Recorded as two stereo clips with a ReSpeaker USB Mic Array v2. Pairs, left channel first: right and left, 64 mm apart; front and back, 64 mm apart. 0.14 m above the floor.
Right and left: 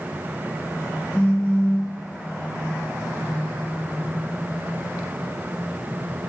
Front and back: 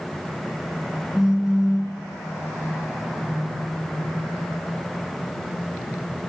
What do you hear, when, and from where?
1.1 s a phone buzzing: 110° right, 0.6 m